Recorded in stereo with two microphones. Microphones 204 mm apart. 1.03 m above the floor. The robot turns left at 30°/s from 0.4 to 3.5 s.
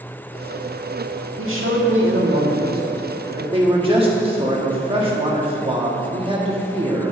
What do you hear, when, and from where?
1.4 s a man speaking: 90° right, 1.7 m; by 7.1 s 155° right, 1.7 m